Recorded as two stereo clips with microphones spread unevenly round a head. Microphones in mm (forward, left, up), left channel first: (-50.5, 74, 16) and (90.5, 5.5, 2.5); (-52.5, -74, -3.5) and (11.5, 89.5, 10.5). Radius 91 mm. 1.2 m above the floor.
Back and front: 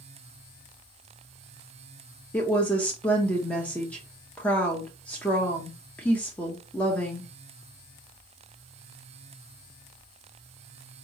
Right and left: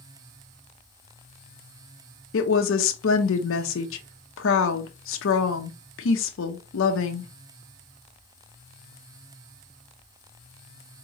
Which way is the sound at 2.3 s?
125° right.